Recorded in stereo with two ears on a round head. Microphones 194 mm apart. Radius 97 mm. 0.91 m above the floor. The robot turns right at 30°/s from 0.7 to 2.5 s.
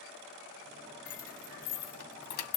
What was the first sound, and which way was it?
Keys jangling, 35° left (ahead or behind).